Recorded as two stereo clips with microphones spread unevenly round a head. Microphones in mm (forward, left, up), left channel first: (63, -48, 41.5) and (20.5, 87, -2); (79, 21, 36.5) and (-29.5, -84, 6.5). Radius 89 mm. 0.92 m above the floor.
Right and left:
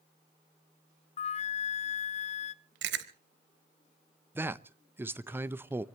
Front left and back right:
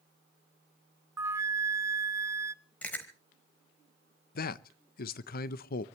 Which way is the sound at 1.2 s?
110° right.